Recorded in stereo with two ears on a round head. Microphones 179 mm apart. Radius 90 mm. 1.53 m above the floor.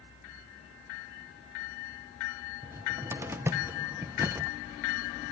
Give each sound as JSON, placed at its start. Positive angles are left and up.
{"t": 2.6, "sound": "a cupboard door", "side_deg": -10, "distance_m": 0.8}